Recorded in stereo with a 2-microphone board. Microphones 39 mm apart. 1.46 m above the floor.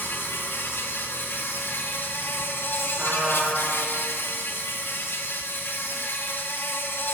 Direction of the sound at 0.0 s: 65° left (ahead or behind).